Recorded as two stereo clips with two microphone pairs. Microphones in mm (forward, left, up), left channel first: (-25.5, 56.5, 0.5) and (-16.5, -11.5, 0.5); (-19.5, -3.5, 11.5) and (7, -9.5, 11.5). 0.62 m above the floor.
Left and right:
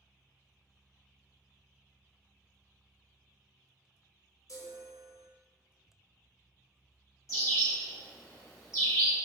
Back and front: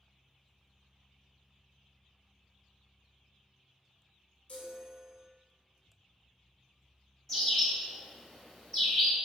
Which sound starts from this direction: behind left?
A chime, at 4.5 s.